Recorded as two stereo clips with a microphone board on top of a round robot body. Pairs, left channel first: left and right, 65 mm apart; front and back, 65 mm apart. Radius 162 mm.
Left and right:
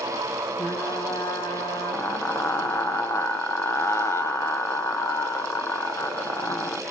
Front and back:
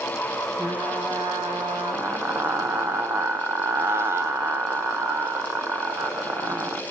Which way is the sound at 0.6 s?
135° left.